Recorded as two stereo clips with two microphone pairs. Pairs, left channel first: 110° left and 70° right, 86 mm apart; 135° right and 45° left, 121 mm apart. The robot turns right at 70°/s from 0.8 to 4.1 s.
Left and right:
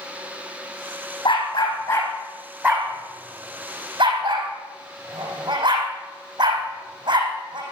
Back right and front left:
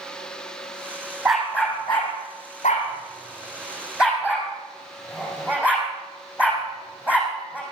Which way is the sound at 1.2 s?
125° left.